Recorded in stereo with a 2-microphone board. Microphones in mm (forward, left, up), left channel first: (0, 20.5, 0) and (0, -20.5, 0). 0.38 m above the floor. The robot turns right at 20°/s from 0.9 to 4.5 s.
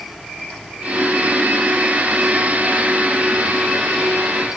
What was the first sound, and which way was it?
Only background noise.